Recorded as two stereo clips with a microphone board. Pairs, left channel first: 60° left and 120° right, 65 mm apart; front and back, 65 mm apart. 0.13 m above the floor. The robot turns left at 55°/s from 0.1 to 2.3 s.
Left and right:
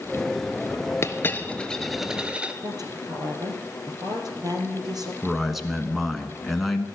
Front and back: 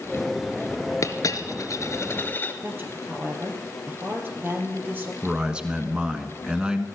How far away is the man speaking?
About 1.1 m.